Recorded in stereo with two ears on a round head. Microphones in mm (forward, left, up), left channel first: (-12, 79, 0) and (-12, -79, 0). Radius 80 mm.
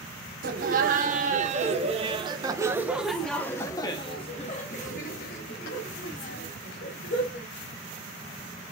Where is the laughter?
55° right (ahead or behind), 1.7 m; by 7.5 s 70° left (ahead or behind), 2.5 m.